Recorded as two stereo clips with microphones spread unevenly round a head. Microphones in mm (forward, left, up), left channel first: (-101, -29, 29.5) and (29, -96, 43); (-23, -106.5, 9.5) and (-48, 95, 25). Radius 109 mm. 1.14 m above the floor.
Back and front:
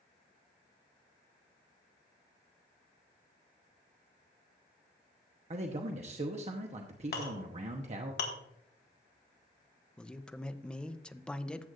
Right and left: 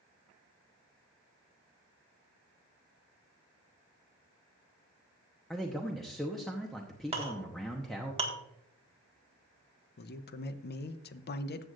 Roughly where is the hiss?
No hiss in this recording.